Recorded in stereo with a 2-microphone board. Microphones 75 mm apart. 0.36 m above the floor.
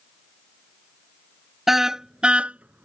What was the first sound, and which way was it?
A car horn, 5° right (ahead or behind).